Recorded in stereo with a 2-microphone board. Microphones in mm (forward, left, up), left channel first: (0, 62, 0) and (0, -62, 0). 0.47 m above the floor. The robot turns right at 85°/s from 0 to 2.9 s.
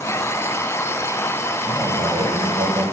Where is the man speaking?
165° right, 1.9 m; by 2.8 s 65° right, 1.9 m.